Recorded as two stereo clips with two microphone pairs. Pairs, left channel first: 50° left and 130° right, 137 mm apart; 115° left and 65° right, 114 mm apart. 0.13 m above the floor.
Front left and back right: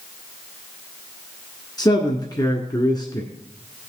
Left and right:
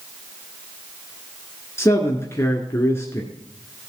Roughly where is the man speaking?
Left.